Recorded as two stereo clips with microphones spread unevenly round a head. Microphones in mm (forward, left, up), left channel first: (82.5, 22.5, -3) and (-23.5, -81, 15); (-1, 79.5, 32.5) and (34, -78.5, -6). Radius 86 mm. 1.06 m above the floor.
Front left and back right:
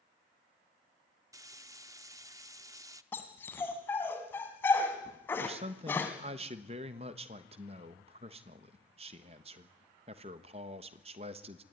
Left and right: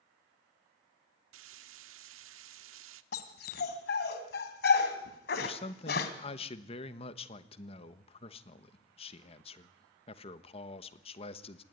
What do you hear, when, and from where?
1.3 s frying: 70° right, 1.0 m
3.1 s a dog barking: 125° left, 2 m
5.4 s a man speaking: 165° left, 1.2 m